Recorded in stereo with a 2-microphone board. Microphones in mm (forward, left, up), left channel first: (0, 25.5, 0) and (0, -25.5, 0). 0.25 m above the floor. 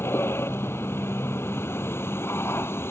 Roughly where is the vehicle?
Left.